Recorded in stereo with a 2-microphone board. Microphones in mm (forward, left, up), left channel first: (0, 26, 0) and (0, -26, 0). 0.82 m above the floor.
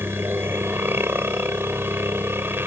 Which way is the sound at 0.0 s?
45° right (ahead or behind).